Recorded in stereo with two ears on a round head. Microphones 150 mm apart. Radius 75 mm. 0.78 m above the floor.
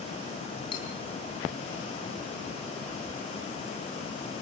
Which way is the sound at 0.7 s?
30° left (ahead or behind).